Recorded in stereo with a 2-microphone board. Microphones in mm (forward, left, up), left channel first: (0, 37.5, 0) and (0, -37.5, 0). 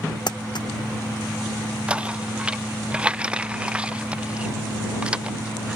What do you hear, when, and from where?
0.3 s crumpling: 75° left (ahead or behind)
1.9 s knocking: 15° right (ahead or behind)